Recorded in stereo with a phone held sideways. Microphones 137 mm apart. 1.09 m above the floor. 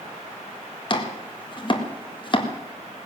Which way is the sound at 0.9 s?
40° left (ahead or behind).